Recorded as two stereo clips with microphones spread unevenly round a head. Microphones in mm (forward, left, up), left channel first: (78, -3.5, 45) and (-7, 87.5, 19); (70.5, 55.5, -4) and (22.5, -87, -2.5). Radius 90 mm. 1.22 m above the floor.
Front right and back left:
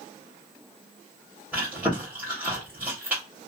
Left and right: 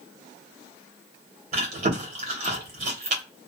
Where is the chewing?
135° right, 0.9 m.